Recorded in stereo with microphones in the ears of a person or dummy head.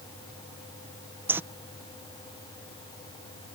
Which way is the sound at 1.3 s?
10° right (ahead or behind).